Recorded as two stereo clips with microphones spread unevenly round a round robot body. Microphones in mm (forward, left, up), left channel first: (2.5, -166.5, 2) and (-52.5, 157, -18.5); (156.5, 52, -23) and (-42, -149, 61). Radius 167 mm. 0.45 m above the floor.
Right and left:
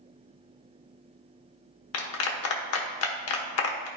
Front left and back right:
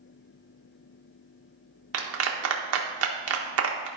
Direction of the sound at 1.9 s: 105° right.